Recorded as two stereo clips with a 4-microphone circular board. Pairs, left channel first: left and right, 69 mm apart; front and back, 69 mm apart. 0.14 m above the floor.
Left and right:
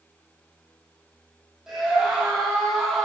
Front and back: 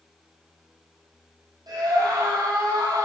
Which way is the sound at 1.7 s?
175° right.